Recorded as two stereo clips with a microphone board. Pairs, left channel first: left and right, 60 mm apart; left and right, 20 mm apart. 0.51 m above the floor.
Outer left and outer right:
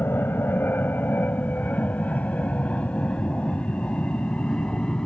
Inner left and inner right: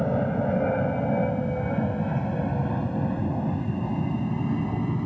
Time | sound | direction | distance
0.0 | an aircraft | 35° left (ahead or behind) | ?